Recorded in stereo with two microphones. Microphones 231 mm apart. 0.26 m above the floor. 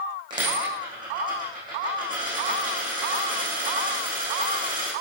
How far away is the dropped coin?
About 4.5 m.